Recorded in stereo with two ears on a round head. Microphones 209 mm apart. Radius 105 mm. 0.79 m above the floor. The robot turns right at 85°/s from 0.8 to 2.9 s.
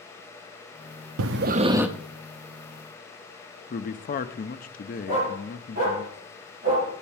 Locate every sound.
1.2 s breathing: 65° right, 0.5 m; by 1.9 s 5° right, 0.5 m
3.7 s a man speaking: 40° left (ahead or behind), 0.7 m
5.1 s a dog barking: 35° right (ahead or behind), 7 m